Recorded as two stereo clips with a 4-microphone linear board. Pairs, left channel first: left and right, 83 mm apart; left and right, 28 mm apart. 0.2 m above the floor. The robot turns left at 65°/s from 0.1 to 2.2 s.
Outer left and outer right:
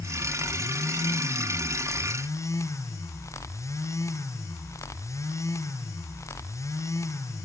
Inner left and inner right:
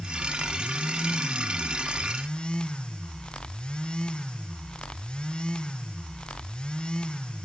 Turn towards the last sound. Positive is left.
No sound to turn to.